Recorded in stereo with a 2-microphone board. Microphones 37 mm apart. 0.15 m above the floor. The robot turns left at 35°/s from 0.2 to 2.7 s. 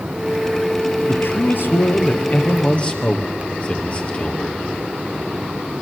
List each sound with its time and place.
1.1 s a man speaking: 90° left, 3.5 m; by 4.6 s 35° left, 3.5 m